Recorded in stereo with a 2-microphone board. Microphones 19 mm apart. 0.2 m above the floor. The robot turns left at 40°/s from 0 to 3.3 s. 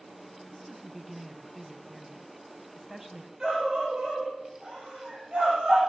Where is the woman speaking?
10° left (ahead or behind), 1.6 m; by 3.3 s 20° right (ahead or behind), 1.6 m.